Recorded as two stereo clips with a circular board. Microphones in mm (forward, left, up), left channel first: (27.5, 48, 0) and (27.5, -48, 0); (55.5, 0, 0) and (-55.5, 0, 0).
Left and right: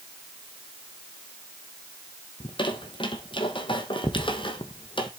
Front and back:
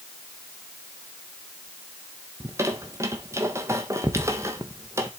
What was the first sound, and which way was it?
A squeak, 115° left.